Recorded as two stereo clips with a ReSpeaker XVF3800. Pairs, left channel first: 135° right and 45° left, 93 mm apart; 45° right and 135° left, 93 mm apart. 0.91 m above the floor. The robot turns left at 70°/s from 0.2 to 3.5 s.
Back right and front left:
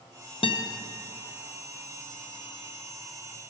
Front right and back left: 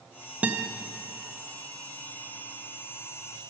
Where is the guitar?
150° right, 0.6 m; by 0.7 s 170° right, 0.6 m.